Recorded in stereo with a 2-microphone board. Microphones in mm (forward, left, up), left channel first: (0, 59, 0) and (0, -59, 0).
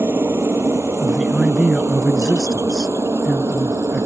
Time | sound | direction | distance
0.0 | a helicopter | 20° right (ahead or behind) | ?
1.0 | a man speaking | 5° right (ahead or behind) | ?